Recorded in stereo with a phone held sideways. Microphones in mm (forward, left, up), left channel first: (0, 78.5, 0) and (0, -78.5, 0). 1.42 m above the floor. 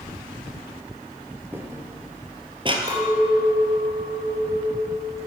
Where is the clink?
30° right (ahead or behind), 3.5 m.